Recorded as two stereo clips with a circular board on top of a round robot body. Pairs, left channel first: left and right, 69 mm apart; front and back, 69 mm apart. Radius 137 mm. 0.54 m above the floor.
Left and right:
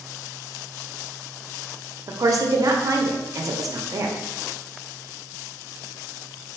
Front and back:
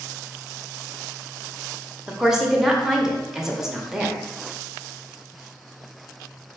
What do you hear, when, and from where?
2.1 s a woman speaking: 100° right, 0.9 m